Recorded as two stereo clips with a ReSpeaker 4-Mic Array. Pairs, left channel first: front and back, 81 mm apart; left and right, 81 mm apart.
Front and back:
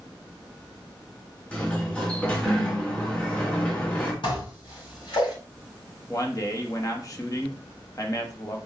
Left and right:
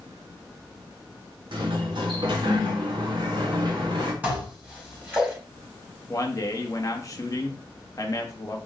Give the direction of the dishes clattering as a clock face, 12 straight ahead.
1 o'clock.